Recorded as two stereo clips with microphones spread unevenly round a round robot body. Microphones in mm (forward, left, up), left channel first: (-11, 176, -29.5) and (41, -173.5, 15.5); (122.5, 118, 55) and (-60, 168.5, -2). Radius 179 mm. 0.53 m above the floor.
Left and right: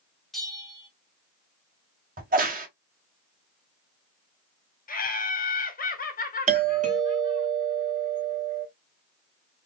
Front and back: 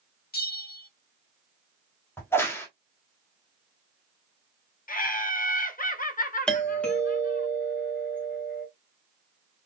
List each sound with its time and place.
0.3 s a bell: 20° left, 1.4 m
2.2 s a crack: 120° right, 1.1 m
4.9 s laughter: 35° left, 1.5 m
6.5 s a doorbell: 135° right, 1.4 m